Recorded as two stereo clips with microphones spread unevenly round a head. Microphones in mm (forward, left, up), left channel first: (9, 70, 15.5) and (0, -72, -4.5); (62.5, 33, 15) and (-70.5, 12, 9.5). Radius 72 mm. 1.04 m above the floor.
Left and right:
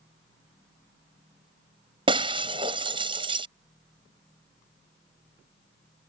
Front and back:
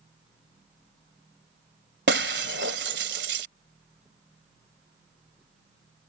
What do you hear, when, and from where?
2.1 s breaking glass: 155° right